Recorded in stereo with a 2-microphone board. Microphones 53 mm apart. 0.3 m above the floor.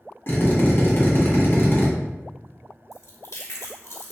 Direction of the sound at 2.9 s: 70° left (ahead or behind).